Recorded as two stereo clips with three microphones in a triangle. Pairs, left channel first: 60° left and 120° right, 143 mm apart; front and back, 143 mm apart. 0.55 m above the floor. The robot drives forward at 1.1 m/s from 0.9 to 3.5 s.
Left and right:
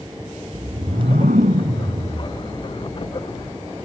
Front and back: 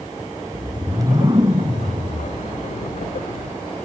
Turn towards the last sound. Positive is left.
turn(degrees=-145)